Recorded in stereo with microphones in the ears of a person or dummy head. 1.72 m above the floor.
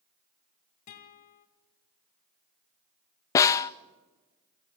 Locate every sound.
0.9 s a guitar: 35° left (ahead or behind), 1.8 m
3.4 s a snare drum: 15° left (ahead or behind), 0.5 m